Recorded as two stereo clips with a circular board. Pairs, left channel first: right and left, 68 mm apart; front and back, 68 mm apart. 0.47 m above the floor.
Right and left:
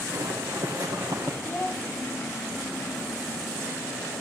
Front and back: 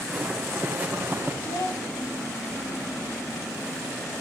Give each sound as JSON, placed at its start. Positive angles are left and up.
{"t": 0.1, "sound": "footsteps", "azimuth_deg": 100, "distance_m": 2.5}
{"t": 1.4, "sound": "a child speaking", "azimuth_deg": -30, "distance_m": 3.0}